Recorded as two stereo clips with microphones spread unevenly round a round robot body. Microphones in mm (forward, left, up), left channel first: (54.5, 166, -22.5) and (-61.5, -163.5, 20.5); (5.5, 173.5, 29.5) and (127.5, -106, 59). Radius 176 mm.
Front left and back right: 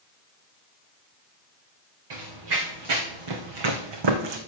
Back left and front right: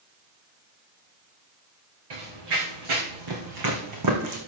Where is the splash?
No splash in this recording.